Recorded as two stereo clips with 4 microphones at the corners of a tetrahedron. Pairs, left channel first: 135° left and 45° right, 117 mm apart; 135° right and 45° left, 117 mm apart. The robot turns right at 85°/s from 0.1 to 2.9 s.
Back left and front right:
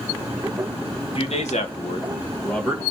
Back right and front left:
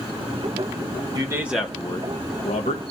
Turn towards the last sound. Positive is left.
turn(degrees=-115)